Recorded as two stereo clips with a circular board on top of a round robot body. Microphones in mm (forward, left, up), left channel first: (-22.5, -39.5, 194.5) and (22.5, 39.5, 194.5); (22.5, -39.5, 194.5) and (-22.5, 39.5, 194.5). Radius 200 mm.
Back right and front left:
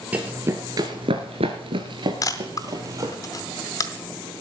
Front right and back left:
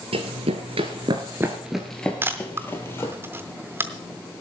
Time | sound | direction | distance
0.1 | running footsteps | 130° left | 1.1 m
2.2 | a camera shutter | 175° right | 0.7 m